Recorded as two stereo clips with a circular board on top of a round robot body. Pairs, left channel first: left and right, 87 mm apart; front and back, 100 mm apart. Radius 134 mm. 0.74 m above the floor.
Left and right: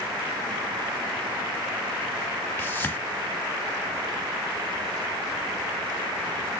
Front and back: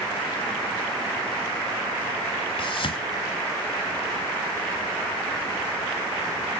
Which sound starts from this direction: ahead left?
A whoosh, at 2.6 s.